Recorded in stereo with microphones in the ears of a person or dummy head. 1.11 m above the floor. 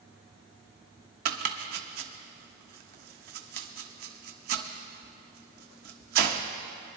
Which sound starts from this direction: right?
Chopping, at 1.2 s.